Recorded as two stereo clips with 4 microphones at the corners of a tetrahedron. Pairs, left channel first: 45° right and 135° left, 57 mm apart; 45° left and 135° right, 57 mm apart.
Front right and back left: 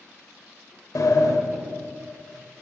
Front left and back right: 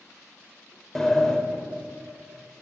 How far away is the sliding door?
About 0.7 m.